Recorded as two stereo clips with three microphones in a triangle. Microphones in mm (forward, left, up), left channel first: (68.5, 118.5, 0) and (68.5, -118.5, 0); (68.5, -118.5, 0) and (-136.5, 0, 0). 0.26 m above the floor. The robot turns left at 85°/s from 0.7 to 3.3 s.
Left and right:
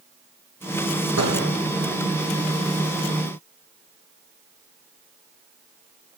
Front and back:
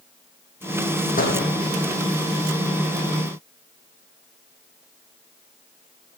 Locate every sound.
1.2 s a door slam: 85° right, 9.5 m; by 1.5 s 115° right, 9.5 m